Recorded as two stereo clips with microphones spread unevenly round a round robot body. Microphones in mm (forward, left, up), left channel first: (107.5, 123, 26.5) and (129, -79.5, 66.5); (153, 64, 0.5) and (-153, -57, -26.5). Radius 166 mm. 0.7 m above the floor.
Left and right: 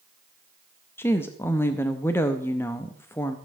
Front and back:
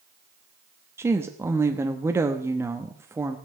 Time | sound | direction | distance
1.0 | a woman speaking | 135° left | 0.6 m